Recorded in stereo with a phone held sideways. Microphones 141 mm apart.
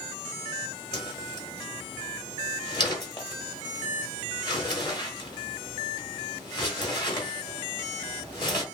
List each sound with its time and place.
0.9 s a whoosh: 35° left (ahead or behind), 1.4 m